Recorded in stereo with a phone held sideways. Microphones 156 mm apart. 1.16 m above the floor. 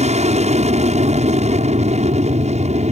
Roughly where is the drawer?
No drawer in this recording.